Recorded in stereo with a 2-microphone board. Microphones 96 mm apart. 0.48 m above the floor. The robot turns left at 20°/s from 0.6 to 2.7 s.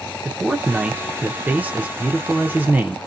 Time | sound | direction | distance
0.2 | a man speaking | 15° right (ahead or behind) | 0.7 m